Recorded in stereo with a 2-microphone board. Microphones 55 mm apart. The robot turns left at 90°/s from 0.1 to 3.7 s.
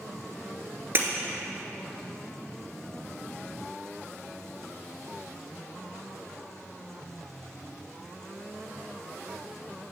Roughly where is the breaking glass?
Right.